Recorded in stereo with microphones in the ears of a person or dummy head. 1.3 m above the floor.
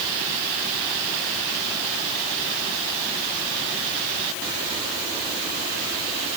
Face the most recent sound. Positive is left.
No sound to turn to.